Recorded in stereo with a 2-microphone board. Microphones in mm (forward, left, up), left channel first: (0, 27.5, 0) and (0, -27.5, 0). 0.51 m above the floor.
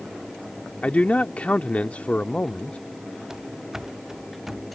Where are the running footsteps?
5° right (ahead or behind).